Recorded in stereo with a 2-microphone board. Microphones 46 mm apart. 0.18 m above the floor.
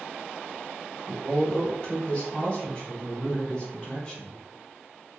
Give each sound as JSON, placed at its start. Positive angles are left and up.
{"t": 1.1, "sound": "a woman speaking", "side_deg": 20, "distance_m": 1.8}